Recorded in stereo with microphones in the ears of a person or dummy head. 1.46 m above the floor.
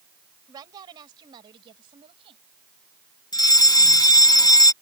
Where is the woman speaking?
20° right (ahead or behind); by 2.4 s 25° right (ahead or behind).